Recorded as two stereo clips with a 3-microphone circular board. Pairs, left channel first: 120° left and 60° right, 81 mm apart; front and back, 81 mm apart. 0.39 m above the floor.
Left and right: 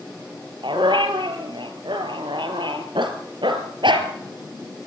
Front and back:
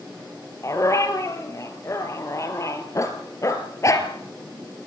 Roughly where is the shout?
I don't hear a shout.